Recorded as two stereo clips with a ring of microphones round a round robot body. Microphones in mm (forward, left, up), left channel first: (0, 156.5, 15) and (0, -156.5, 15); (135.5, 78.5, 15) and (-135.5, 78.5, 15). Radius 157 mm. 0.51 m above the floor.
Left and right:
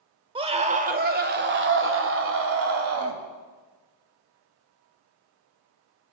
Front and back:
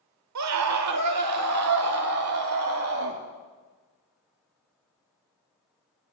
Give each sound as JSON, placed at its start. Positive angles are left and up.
{"t": 0.3, "sound": "a scream", "azimuth_deg": -165, "distance_m": 1.4}